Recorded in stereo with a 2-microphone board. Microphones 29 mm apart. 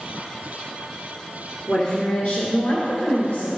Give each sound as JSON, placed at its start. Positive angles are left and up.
{"t": 1.7, "sound": "a woman speaking", "side_deg": 30, "distance_m": 1.7}